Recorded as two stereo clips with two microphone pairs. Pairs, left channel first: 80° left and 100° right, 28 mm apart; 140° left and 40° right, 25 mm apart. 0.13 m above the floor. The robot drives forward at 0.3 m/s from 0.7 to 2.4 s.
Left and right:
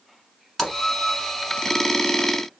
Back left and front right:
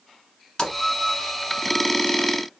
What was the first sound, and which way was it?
A splash, 150° left.